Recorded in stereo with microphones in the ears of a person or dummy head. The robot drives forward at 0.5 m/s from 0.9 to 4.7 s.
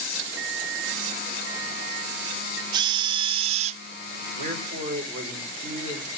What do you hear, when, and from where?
0.4 s an alarm clock: 80° right, 3 m; by 2.6 s 75° right (ahead or behind), 3 m
2.7 s a drill: 30° right (ahead or behind), 1.3 m; by 3.8 s 50° right (ahead or behind), 0.9 m
4.4 s a man speaking: 40° right (ahead or behind), 5.5 m; by 6.1 s 35° right (ahead or behind), 5.5 m